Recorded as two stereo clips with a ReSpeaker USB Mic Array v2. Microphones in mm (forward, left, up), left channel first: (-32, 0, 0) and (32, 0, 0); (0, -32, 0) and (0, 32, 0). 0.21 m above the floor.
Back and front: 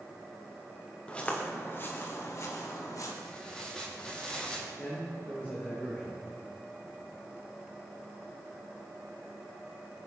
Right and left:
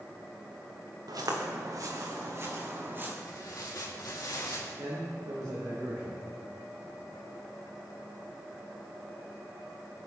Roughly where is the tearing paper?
Right.